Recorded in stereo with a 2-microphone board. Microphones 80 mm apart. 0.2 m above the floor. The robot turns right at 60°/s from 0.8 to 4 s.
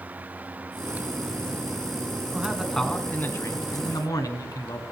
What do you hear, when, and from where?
2.3 s a man speaking: 20° right, 1.6 m; by 4.8 s 80° left, 1.6 m